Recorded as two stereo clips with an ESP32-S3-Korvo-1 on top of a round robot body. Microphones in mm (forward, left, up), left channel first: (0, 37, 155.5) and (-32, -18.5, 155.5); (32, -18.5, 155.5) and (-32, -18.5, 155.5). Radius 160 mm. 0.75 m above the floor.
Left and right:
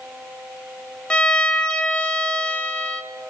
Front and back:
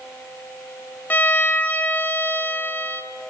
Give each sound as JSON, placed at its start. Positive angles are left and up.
{"t": 1.1, "sound": "a violin", "azimuth_deg": 5, "distance_m": 0.8}